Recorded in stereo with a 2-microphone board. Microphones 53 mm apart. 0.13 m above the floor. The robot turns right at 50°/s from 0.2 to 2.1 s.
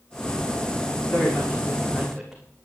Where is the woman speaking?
130° left, 6.5 m; by 2.4 s straight behind, 6.5 m.